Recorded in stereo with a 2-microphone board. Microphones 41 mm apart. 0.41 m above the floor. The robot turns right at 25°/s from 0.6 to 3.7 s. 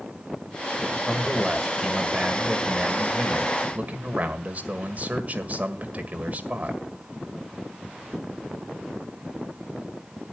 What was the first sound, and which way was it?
A man speaking, 170° left.